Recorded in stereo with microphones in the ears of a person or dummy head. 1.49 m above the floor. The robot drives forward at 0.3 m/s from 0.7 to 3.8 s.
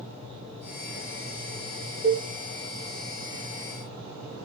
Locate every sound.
2.0 s a cowbell: 50° right (ahead or behind), 1.7 m